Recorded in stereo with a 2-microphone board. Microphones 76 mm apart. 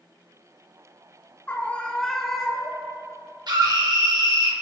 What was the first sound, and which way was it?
A scream, 20° left (ahead or behind).